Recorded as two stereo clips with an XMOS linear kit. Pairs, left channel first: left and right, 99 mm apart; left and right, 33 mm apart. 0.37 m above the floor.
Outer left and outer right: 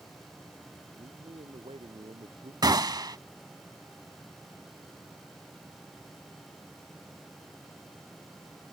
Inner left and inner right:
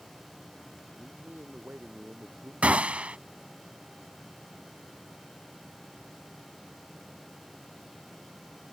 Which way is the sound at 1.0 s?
70° right (ahead or behind).